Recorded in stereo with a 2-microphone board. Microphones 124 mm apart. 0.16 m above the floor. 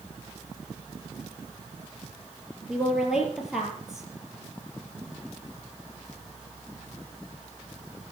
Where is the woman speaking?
5° right (ahead or behind), 4 m.